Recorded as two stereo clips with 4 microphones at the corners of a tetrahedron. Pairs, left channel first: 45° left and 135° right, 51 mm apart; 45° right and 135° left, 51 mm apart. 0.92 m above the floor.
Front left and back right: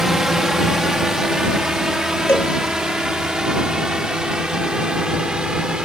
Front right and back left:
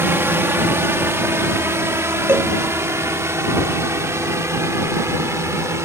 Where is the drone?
145° left; by 5.8 s 150° left.